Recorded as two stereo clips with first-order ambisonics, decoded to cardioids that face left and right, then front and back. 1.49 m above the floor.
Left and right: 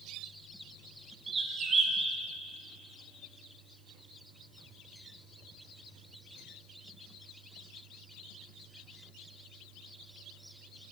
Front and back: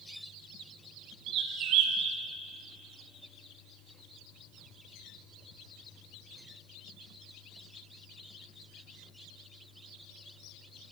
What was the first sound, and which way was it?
A bird, 160° right.